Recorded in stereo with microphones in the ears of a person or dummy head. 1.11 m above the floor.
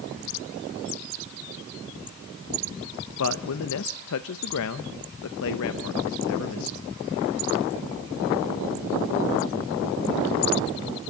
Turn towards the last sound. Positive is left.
turn(degrees=70)  # may be behind; listen again after turning